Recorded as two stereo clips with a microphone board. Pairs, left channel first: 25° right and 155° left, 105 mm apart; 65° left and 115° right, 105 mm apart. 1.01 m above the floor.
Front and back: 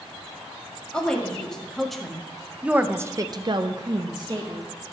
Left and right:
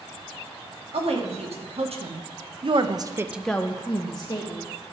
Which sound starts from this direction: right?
A woman speaking, at 0.9 s.